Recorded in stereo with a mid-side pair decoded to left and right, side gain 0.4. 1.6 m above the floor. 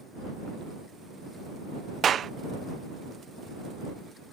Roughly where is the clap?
Ahead right.